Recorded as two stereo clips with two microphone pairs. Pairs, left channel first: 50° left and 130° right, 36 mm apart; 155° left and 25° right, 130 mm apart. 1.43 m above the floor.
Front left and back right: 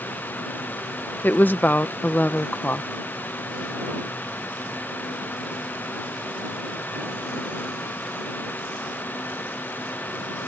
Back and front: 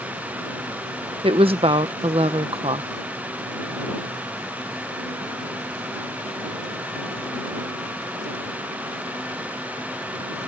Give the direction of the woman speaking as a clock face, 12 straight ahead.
11 o'clock.